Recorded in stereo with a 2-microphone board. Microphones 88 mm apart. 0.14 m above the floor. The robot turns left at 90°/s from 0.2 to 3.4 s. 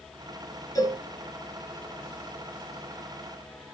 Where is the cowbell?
40° left (ahead or behind), 1.7 m; by 1.0 s 30° left (ahead or behind), 1.7 m.